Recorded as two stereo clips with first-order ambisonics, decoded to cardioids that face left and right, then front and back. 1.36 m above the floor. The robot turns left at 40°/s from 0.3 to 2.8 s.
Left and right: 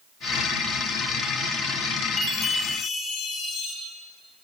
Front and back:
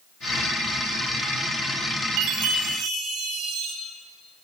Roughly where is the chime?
Behind.